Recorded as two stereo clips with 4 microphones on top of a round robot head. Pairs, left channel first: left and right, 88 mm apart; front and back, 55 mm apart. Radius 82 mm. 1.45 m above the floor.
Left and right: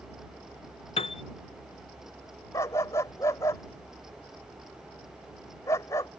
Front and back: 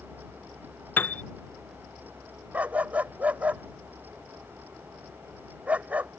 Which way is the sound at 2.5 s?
130° left.